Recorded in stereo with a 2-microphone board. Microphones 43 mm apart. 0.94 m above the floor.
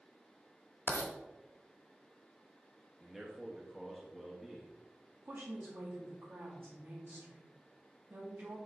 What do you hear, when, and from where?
0.9 s writing: 60° left (ahead or behind), 1.4 m
3.0 s a man speaking: centre (ahead or behind), 1.3 m
5.2 s a woman speaking: 55° right (ahead or behind), 2 m